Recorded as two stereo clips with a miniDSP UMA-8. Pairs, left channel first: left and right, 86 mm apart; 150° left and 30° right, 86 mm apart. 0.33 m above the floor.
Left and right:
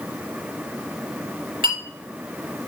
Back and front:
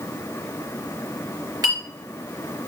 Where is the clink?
70° right, 3 m.